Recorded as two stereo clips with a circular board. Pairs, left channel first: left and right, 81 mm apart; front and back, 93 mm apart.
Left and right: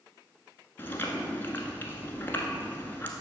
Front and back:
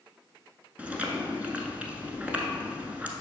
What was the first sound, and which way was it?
Chewing, 120° left.